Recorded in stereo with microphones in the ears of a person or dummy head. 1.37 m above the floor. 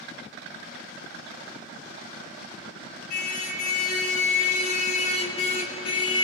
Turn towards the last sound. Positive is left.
turn(degrees=35)  # may be behind; listen again after turning